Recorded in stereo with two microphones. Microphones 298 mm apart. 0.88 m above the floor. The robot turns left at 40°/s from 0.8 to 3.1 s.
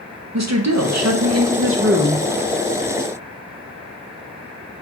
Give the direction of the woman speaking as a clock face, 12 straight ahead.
3 o'clock.